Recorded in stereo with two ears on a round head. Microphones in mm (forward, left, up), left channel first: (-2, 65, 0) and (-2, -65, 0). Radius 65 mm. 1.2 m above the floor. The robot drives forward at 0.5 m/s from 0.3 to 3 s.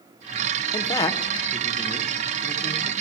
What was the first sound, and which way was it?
A man speaking, 25° left (ahead or behind).